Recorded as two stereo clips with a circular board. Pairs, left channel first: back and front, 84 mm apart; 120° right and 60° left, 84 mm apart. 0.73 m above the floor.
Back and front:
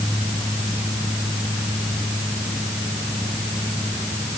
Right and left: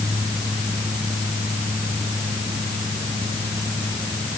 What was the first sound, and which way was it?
Only background noise.